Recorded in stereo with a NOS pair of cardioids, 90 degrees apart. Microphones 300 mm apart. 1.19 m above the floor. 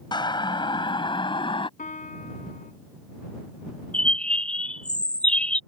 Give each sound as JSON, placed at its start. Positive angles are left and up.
{"t": 0.1, "sound": "a siren", "azimuth_deg": 15}
{"t": 1.8, "sound": "a piano", "azimuth_deg": 25}
{"t": 3.9, "sound": "a bird", "azimuth_deg": 5}